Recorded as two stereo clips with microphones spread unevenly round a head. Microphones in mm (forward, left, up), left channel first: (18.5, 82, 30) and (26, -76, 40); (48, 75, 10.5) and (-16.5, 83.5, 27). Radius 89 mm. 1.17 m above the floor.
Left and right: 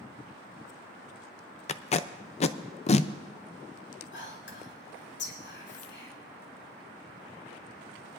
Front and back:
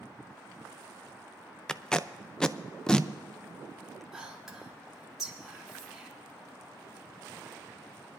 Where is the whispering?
85° left, 3.5 m.